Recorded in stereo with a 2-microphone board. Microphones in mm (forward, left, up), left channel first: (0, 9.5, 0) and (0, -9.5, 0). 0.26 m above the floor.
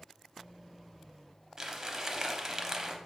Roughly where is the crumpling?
Right.